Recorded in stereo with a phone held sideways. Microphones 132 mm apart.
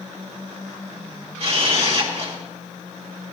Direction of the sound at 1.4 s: 50° right (ahead or behind).